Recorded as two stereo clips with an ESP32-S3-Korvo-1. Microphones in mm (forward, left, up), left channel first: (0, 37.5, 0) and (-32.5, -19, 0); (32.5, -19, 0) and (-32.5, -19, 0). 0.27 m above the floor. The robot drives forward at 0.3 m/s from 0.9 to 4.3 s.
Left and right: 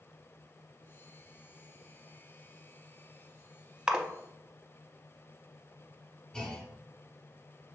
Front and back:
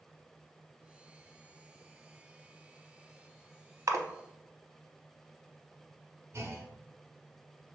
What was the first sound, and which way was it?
A splash, 165° left.